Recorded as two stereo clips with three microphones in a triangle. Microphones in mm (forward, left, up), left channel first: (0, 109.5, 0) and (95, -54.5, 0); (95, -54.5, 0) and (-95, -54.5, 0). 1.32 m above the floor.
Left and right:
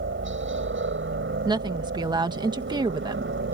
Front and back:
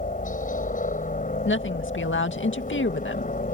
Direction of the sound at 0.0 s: 50° right.